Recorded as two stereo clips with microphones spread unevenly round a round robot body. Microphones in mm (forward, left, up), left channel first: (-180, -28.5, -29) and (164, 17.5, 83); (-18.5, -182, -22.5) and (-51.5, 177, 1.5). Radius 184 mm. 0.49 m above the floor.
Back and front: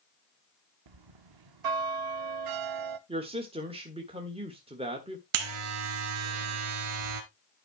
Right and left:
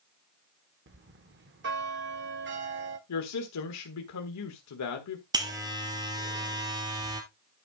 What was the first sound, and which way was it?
A bell, 35° left.